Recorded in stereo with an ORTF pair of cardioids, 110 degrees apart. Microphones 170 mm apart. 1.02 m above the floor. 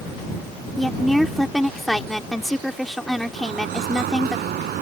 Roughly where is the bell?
No bell in this recording.